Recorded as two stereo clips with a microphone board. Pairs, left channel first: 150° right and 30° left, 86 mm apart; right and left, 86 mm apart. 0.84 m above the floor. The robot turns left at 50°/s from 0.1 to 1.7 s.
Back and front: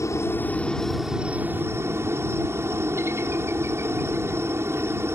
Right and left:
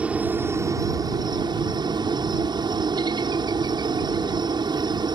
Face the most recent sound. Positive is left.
turn(degrees=80)